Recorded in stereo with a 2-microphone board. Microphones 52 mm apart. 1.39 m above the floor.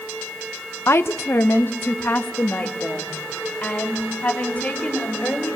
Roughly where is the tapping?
I don't hear tapping.